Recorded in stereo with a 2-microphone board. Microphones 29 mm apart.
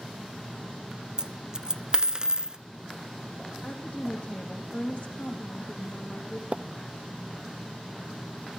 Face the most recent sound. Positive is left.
turn(degrees=-50)  # may be behind; listen again after turning